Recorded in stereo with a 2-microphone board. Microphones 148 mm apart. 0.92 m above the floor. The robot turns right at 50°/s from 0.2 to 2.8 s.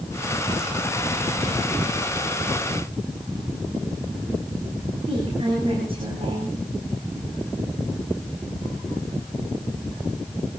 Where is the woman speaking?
40° right (ahead or behind), 7.5 m.